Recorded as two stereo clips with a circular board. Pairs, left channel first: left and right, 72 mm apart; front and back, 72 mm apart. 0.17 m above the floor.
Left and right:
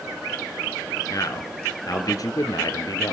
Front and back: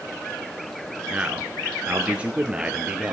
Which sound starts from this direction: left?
A man speaking, at 1.1 s.